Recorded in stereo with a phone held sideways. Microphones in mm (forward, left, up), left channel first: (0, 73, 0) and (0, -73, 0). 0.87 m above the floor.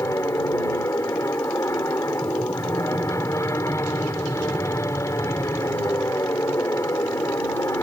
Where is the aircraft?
20° left (ahead or behind).